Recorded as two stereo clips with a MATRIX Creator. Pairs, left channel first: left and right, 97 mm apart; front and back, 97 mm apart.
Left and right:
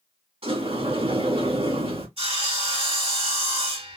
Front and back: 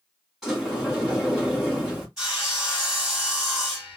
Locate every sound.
0.4 s a sliding door: 95° right, 2.5 m
2.2 s sawing: 95° right, 2.5 m